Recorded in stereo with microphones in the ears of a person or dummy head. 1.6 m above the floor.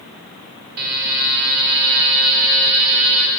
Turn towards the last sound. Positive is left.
turn(degrees=-50)  # may be behind; listen again after turning